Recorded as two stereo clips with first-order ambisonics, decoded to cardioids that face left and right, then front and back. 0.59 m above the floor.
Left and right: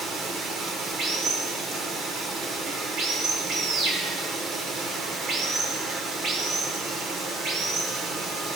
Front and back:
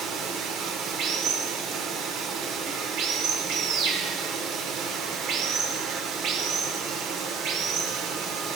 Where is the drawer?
I don't hear a drawer.